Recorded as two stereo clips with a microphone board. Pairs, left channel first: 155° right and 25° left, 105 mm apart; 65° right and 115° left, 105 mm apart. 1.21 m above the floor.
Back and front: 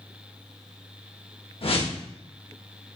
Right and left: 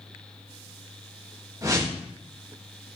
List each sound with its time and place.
1.6 s a whoosh: 170° left, 1.2 m